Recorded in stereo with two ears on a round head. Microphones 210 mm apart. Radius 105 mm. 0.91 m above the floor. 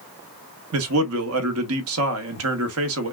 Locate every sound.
0.7 s a man speaking: 65° right (ahead or behind), 1.2 m